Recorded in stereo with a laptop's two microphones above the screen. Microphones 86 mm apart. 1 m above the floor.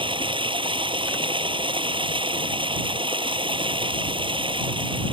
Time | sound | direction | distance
0.0 | running water | 90° right | ?